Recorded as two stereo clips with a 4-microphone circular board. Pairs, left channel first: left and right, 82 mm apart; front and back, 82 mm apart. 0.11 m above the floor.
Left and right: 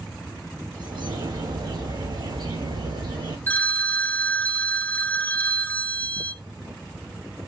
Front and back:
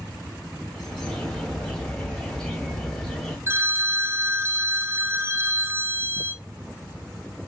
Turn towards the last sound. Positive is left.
turn(degrees=145)